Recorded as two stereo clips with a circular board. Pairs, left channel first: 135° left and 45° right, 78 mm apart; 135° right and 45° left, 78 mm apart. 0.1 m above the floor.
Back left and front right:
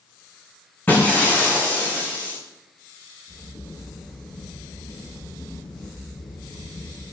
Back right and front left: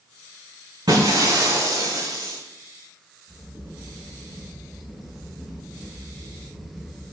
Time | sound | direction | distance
0.9 | breaking glass | 70° left | 4.5 m
3.3 | a crack | 130° left | 6 m